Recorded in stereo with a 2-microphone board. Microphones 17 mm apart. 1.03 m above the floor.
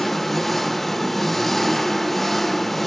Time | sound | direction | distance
0.0 | an engine running | 10° left (ahead or behind) | 0.8 m